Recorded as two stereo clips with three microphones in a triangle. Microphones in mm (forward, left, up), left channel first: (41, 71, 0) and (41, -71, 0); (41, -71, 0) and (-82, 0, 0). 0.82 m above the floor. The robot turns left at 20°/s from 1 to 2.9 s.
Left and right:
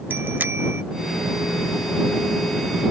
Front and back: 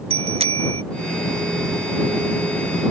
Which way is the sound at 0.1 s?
165° right.